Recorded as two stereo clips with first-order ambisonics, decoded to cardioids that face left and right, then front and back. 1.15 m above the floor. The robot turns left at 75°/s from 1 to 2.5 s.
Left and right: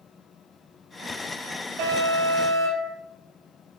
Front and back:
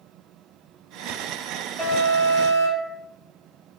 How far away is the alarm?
About 3.5 m.